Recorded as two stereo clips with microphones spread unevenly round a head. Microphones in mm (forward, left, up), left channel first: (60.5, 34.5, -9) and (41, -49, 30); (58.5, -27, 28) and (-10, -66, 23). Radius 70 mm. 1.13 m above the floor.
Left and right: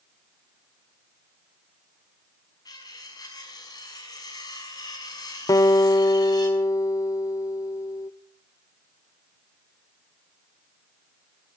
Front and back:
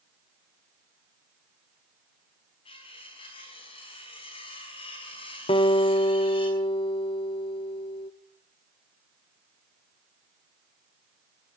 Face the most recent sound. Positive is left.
turn(degrees=35)